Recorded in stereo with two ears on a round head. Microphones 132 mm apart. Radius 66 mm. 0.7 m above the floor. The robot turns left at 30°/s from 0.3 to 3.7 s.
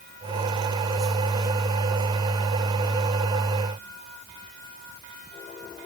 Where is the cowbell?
No cowbell in this recording.